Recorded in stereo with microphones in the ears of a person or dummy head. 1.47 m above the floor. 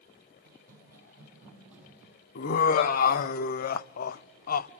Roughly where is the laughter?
Left.